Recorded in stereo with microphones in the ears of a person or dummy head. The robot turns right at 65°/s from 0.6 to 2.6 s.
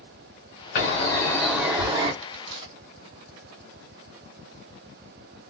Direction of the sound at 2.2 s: 50° right (ahead or behind).